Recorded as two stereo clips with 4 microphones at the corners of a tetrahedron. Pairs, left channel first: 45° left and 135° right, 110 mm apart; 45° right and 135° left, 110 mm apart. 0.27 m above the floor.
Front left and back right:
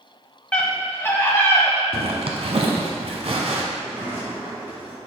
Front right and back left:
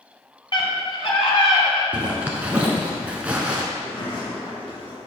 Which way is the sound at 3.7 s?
70° right.